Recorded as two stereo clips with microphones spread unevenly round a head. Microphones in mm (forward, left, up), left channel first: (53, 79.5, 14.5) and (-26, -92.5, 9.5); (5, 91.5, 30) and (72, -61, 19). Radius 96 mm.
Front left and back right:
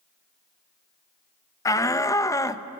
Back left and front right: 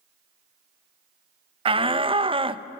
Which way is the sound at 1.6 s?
10° right.